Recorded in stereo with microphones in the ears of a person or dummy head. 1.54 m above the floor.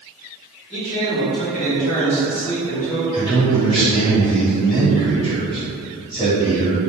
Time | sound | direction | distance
0.7 | a man speaking | 35° left (ahead or behind) | 1.1 m
3.1 | a man speaking | 25° left (ahead or behind) | 1.3 m